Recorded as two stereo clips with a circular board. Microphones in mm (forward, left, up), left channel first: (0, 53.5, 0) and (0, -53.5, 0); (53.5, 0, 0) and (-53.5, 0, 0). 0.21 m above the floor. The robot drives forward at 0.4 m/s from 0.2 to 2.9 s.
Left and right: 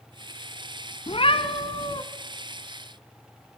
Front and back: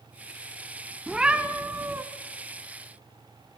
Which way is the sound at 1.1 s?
100° left.